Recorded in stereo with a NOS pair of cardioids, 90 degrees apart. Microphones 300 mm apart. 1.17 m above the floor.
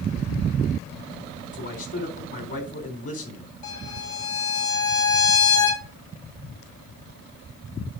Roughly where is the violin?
Ahead left.